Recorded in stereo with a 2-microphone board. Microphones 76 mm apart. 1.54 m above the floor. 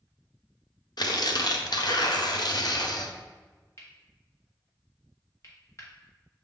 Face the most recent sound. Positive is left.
turn(degrees=40)  # may be behind; listen again after turning